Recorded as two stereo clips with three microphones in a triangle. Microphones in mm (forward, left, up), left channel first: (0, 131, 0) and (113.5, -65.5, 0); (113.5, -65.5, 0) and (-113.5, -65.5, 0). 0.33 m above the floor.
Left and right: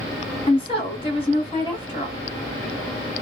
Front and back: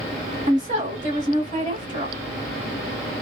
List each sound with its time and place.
0.5 s a woman speaking: 165° left, 1.4 m